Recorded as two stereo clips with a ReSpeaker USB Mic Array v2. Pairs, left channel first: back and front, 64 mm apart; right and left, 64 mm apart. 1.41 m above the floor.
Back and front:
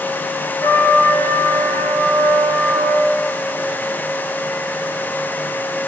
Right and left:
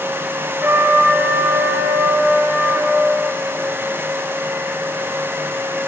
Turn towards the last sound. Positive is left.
turn(degrees=140)